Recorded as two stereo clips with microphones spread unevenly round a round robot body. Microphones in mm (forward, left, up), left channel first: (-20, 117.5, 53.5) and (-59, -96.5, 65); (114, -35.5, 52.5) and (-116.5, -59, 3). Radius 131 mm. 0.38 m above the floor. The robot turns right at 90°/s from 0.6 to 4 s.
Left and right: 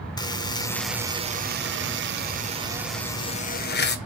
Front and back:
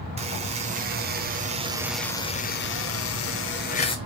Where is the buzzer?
145° left, 0.9 m; by 4.0 s 85° left, 0.9 m.